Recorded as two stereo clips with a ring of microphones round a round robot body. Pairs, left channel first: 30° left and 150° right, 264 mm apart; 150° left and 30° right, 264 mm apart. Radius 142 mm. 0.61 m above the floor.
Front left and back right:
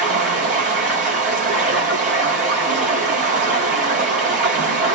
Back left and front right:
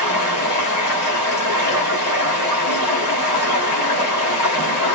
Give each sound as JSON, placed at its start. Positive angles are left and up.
{"t": 0.0, "sound": "running water", "azimuth_deg": 150, "distance_m": 2.5}